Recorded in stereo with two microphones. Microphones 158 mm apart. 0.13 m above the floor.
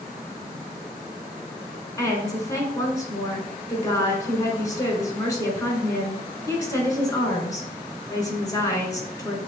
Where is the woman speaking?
20° left (ahead or behind), 1.1 m.